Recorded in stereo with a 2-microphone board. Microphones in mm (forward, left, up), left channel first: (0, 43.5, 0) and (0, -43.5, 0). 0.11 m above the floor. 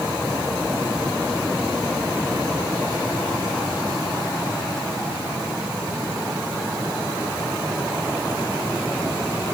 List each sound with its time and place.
Only background noise.